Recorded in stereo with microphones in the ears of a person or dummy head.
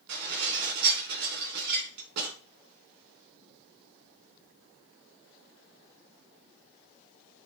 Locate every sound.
0.1 s dishes clattering: 55° right (ahead or behind), 4 m